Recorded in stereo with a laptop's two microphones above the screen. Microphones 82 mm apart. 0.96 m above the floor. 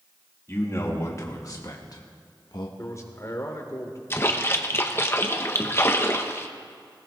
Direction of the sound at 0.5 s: 35° left (ahead or behind).